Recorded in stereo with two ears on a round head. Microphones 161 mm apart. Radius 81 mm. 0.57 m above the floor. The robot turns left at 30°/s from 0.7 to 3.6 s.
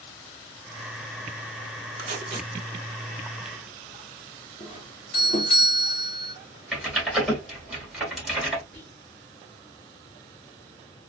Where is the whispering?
10° left (ahead or behind), 1.0 m.